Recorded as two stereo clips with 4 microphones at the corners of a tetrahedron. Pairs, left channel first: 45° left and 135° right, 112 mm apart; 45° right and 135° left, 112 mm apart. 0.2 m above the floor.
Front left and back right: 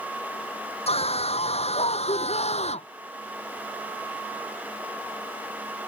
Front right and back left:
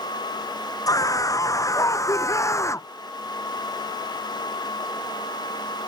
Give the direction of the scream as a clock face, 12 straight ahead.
11 o'clock.